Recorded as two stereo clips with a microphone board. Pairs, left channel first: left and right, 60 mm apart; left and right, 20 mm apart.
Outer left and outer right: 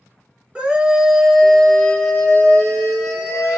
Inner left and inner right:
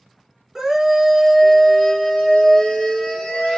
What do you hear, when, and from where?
0.6 s a scream: 20° right (ahead or behind), 1.4 m; by 3.6 s 45° left (ahead or behind), 1.8 m